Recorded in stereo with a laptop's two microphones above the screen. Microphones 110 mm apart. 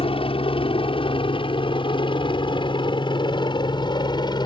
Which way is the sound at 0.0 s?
55° left (ahead or behind).